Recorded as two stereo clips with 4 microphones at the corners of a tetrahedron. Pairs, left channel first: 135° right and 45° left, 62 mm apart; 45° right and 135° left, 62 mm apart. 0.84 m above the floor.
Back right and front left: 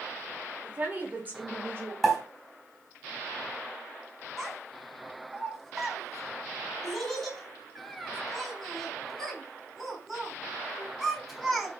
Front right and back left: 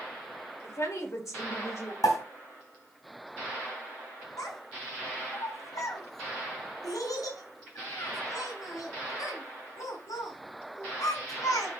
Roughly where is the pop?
Ahead right.